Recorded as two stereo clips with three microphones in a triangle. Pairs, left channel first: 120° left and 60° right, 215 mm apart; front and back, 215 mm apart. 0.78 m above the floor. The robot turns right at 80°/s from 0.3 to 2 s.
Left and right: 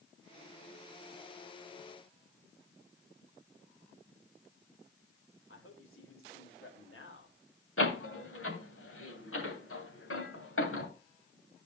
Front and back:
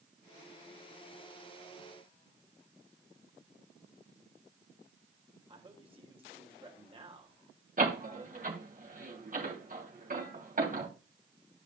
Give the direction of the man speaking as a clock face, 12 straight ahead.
8 o'clock.